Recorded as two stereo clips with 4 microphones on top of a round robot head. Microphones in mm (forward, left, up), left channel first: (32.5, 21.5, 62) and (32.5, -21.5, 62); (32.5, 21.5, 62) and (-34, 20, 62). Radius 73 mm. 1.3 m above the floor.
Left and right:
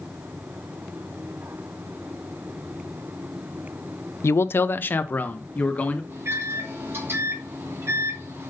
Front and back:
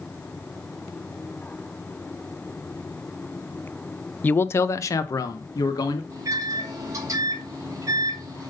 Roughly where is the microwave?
Behind right.